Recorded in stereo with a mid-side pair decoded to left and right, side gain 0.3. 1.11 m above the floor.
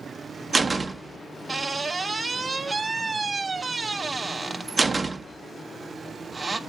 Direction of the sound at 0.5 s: 40° right.